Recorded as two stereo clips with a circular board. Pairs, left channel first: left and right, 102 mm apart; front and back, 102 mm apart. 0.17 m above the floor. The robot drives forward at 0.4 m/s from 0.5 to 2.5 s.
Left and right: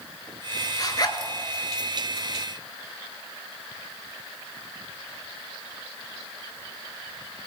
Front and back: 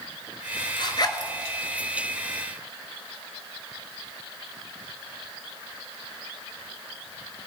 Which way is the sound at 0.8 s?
40° left.